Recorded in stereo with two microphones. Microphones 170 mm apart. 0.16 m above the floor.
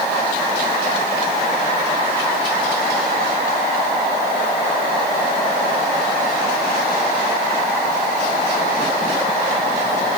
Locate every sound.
Only background noise.